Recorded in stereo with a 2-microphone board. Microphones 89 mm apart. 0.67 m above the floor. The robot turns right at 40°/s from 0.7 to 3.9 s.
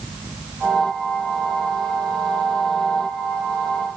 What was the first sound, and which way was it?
Only background noise.